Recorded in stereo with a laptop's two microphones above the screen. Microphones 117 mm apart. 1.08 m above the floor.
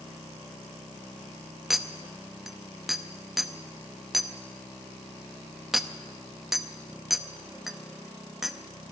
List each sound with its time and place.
1.7 s a clink: 5° right (ahead or behind), 0.8 m